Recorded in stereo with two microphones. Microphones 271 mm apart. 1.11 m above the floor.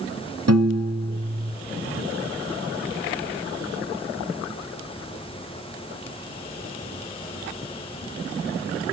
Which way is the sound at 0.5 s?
65° right (ahead or behind).